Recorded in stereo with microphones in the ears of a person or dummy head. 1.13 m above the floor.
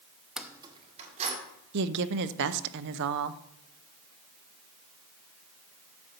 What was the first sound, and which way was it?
Keys jangling, 5° left (ahead or behind).